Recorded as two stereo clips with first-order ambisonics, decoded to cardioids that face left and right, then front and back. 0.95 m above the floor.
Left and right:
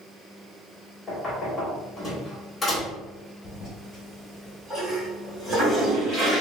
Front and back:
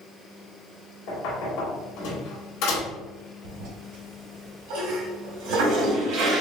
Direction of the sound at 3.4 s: 170° left.